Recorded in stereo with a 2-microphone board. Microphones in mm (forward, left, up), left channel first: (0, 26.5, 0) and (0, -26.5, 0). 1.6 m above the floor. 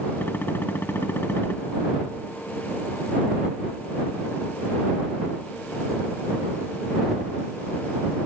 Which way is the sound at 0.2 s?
45° left (ahead or behind).